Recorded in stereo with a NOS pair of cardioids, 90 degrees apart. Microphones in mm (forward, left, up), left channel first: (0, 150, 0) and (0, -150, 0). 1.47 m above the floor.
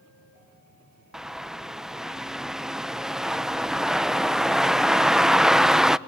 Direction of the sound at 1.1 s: Straight ahead.